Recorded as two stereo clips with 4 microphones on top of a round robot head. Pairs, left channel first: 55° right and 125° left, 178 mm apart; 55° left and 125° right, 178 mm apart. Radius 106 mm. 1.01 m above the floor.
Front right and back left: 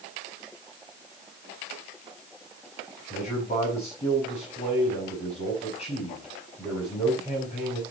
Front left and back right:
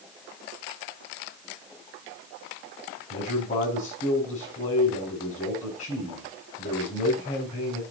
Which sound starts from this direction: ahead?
A man speaking, at 3.1 s.